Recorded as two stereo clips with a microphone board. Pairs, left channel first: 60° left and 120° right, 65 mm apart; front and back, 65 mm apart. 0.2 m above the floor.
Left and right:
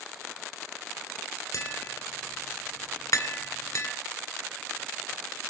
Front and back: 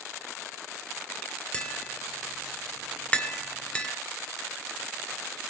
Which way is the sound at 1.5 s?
65° left.